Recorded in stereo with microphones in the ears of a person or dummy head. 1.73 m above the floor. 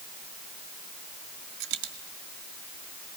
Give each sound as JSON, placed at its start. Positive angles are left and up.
{"t": 1.6, "sound": "a dropped coin", "side_deg": -60, "distance_m": 2.0}